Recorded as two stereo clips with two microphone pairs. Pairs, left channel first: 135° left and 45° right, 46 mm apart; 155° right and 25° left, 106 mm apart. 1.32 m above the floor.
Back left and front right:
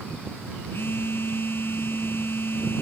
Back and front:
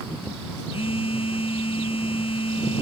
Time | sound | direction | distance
0.7 | a phone buzzing | 175° left | ?